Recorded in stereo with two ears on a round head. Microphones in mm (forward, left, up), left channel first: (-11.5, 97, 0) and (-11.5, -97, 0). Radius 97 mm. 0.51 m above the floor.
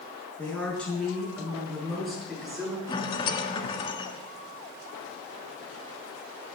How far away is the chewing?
No chewing in this recording.